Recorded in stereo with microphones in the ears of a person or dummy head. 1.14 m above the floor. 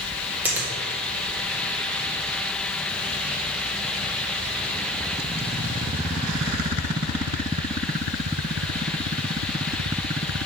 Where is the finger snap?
10° right (ahead or behind), 1.8 m.